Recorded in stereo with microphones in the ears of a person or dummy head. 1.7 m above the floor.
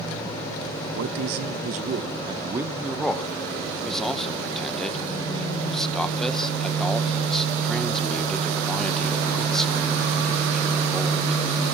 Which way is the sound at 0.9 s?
60° right (ahead or behind).